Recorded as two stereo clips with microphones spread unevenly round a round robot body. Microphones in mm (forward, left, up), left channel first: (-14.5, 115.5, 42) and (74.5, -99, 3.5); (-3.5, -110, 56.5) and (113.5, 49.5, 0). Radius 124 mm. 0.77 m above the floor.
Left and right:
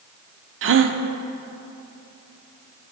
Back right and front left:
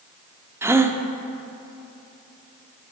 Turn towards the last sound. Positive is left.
turn(degrees=-25)